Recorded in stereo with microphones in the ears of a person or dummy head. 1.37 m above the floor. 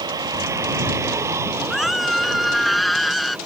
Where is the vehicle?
20° right (ahead or behind); by 3.5 s 5° right (ahead or behind).